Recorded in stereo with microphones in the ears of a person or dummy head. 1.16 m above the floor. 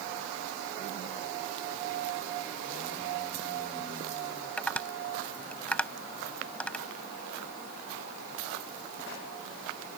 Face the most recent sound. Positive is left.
turn(degrees=5)  # may be behind; listen again after turning